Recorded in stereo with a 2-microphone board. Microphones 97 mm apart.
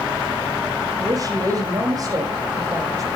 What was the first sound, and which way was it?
A woman speaking, 40° right (ahead or behind).